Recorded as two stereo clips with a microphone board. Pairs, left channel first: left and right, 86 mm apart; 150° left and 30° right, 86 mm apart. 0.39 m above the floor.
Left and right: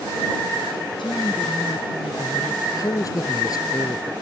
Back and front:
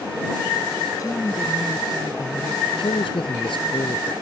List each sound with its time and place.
1.0 s a woman speaking: 105° left
2.6 s a man speaking: 135° left